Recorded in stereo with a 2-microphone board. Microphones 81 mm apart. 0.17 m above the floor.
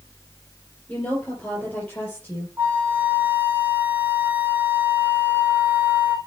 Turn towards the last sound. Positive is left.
turn(degrees=-25)  # may be behind; listen again after turning